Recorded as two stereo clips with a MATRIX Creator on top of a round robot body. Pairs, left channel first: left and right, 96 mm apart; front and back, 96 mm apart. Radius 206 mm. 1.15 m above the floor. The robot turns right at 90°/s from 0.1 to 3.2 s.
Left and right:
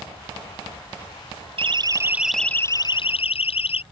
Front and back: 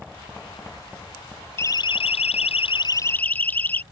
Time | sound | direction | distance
1.6 | a siren | 65° right | ?